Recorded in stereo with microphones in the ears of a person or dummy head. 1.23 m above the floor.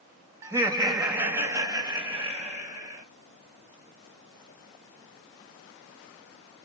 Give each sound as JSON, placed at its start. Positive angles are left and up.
{"t": 0.4, "sound": "laughter", "side_deg": -20, "distance_m": 1.0}